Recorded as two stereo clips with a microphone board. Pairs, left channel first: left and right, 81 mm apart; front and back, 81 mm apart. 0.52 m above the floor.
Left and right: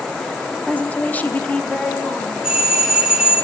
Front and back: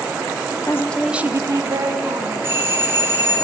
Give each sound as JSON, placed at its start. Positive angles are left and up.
{"t": 0.7, "sound": "a woman speaking", "azimuth_deg": 25, "distance_m": 0.8}
{"t": 2.4, "sound": "a doorbell", "azimuth_deg": -165, "distance_m": 1.6}